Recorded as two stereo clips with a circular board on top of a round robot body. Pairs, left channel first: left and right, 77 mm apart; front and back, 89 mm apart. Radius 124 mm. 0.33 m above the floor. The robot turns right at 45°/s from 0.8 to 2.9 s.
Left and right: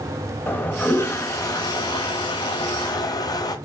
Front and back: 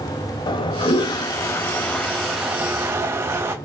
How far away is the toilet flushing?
About 0.9 m.